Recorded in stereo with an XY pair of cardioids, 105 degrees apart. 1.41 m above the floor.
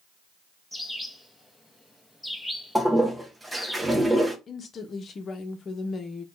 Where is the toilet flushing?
15° right, 0.8 m.